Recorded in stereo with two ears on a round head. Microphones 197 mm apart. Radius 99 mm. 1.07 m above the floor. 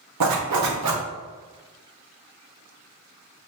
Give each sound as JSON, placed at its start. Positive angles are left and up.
{"t": 0.2, "sound": "a zipper", "side_deg": -80, "distance_m": 1.0}